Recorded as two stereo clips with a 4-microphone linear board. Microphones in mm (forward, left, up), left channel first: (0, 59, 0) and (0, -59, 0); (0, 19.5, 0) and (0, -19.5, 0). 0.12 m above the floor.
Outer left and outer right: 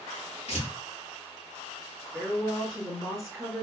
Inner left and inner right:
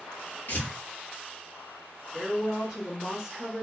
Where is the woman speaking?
Centre (ahead or behind), 1.9 m.